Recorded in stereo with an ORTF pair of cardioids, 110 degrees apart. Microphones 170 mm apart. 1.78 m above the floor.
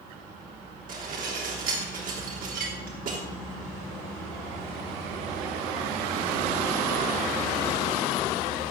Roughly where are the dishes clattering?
Ahead right.